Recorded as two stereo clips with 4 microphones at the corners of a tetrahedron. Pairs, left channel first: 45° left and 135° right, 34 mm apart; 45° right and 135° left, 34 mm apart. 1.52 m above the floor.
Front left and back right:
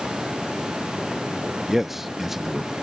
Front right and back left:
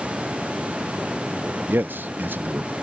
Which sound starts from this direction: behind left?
A man speaking, at 1.7 s.